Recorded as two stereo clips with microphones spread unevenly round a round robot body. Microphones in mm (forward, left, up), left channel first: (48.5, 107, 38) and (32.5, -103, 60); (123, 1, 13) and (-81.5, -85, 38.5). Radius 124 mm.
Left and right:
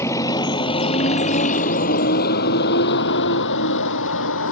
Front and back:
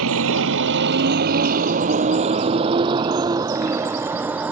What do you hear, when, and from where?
0.0 s a vehicle: 165° left; by 4.5 s 120° left